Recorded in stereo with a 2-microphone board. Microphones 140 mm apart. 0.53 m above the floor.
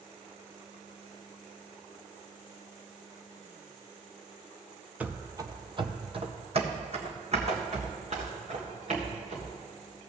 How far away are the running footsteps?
About 0.5 m.